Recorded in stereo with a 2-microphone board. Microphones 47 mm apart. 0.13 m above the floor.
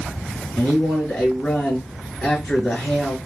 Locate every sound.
0.6 s a man speaking: 20° left (ahead or behind), 2.0 m